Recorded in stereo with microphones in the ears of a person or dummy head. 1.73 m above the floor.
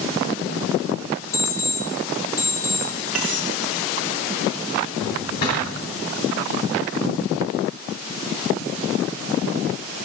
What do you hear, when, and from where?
1.3 s an alarm clock: 10° left (ahead or behind), 2 m
3.1 s cutlery clinking: centre (ahead or behind), 1.0 m
5.0 s a drawer: 45° left (ahead or behind), 2.5 m